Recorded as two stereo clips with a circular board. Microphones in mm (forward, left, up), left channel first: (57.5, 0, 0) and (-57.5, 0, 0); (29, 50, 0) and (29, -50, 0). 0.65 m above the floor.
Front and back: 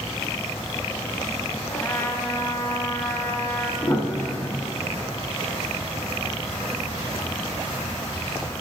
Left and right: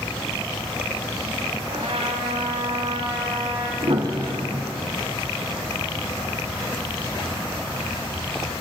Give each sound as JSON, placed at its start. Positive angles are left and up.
{"t": 1.7, "sound": "a trumpet", "azimuth_deg": -70, "distance_m": 2.5}
{"t": 3.8, "sound": "a piano", "azimuth_deg": -65, "distance_m": 2.0}